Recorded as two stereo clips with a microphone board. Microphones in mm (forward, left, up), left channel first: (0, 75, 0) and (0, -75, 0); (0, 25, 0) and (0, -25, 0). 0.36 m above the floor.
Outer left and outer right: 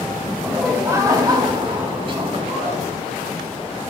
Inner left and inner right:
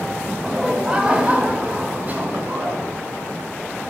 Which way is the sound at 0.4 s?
5° right (ahead or behind).